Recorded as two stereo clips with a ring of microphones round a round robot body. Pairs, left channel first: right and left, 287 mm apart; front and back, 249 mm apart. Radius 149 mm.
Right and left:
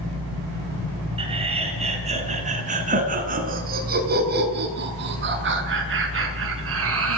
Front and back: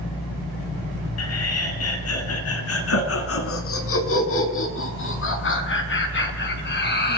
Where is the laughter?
20° left, 6.5 m; by 7.2 s 45° left, 6 m.